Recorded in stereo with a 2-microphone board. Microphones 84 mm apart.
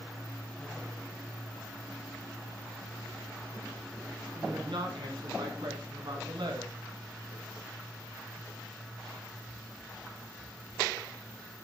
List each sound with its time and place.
4.3 s a woman speaking: 65° right (ahead or behind), 3.5 m; by 6.7 s 60° right (ahead or behind), 3.5 m